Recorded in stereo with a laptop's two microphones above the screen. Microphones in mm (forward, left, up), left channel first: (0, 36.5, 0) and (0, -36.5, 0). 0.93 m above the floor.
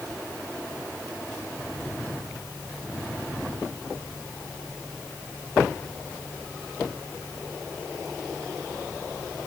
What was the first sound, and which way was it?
Only background noise.